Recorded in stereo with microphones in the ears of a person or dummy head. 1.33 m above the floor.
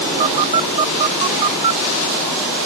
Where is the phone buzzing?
35° right (ahead or behind).